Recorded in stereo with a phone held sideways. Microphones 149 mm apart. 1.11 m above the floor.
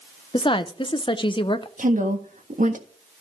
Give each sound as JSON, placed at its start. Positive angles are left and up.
{"t": 0.3, "sound": "a woman speaking", "side_deg": 35, "distance_m": 0.7}
{"t": 1.8, "sound": "a woman speaking", "side_deg": -60, "distance_m": 1.6}